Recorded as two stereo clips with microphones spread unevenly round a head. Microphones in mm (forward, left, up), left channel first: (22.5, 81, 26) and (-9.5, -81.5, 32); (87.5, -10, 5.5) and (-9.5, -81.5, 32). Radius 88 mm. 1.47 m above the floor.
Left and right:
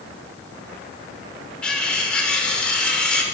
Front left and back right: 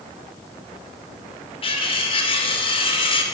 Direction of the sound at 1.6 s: 5° right.